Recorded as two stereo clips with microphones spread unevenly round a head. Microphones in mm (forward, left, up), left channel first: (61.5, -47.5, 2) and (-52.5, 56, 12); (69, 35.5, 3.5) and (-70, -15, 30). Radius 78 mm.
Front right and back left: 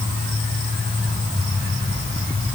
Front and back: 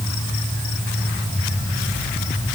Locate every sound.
Only background noise.